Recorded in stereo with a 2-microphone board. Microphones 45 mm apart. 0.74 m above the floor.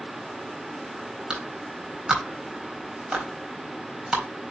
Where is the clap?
15° right (ahead or behind), 4 m.